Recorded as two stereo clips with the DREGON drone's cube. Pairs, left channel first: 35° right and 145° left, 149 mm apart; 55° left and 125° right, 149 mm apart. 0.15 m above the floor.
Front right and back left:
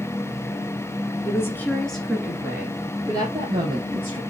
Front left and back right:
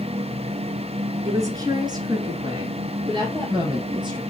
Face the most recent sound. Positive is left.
turn(degrees=-175)